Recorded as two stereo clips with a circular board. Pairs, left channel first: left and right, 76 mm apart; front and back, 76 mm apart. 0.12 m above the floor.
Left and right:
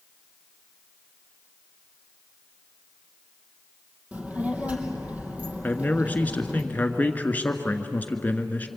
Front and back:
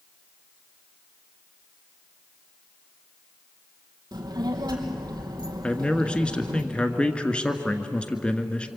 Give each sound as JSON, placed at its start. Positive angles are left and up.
{"t": 4.1, "sound": "a child speaking", "azimuth_deg": -160, "distance_m": 3.0}
{"t": 5.6, "sound": "a man speaking", "azimuth_deg": 55, "distance_m": 1.5}